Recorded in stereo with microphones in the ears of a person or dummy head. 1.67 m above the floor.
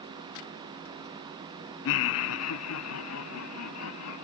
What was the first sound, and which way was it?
Laughter, 70° left (ahead or behind).